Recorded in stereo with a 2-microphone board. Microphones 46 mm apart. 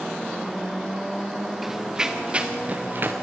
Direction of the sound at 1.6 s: 5° right (ahead or behind).